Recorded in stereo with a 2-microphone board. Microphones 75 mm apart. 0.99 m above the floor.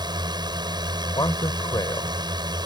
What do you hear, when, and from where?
0.0 s a drone: 70° right (ahead or behind)
1.1 s a man speaking: 65° left (ahead or behind)